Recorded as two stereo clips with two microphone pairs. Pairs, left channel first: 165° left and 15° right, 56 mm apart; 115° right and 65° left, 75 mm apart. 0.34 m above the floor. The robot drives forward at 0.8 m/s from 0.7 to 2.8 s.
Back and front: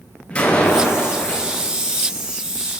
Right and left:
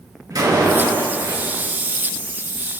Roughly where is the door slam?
Left.